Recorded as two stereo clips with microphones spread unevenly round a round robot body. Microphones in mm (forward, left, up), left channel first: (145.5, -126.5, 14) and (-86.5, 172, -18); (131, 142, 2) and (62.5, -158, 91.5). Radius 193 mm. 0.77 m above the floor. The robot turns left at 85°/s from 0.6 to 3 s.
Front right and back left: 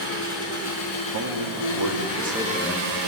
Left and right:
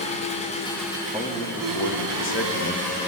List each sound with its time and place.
0.0 s an engine running: 5° left, 3 m; by 3.1 s 160° left, 3 m
1.1 s a man speaking: 165° left, 1.6 m; by 2.9 s 10° left, 1.6 m